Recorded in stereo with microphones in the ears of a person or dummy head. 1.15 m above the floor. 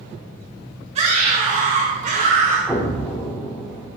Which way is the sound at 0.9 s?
35° right (ahead or behind).